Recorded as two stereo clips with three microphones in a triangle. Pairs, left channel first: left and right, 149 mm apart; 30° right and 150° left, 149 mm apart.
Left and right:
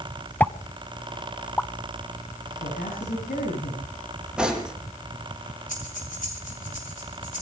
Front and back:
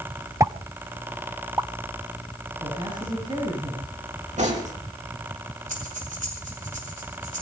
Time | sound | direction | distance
0.4 | a pop | 145° left | 0.8 m
2.6 | a man speaking | 90° left | 6.5 m
4.4 | cutlery clinking | 175° right | 4 m
5.7 | breathing | 120° left | 5.5 m